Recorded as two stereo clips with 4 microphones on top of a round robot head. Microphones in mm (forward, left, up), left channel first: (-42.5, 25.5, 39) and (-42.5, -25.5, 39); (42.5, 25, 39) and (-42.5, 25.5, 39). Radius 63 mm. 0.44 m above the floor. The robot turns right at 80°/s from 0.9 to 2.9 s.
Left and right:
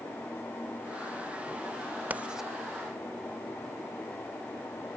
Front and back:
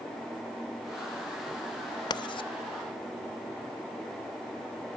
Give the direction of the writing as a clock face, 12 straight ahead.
1 o'clock.